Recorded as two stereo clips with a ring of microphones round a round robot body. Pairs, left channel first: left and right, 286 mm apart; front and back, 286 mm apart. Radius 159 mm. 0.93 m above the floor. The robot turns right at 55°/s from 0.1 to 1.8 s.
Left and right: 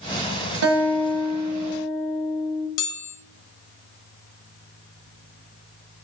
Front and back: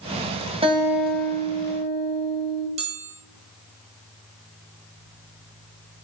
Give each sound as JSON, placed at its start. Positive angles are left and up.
{"t": 0.6, "sound": "a guitar", "azimuth_deg": -110, "distance_m": 1.5}
{"t": 2.8, "sound": "a chime", "azimuth_deg": 110, "distance_m": 1.5}